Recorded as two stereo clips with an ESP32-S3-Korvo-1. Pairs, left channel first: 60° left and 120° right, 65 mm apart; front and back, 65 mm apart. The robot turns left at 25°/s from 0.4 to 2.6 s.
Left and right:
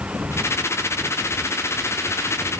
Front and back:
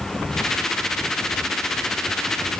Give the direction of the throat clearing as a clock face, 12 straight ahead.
No throat clearing in this recording.